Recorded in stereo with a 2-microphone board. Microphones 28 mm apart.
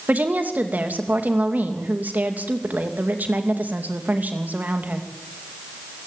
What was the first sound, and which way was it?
A woman speaking, 80° right.